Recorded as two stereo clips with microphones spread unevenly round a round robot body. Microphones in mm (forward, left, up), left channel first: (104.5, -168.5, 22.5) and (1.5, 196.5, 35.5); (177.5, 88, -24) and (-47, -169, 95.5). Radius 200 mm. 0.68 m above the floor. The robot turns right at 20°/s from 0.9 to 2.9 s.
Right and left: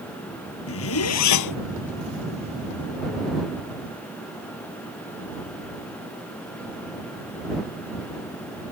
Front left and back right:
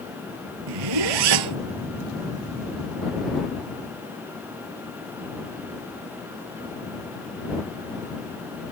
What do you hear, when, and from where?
0.7 s a zipper: 135° right; by 1.6 s 120° right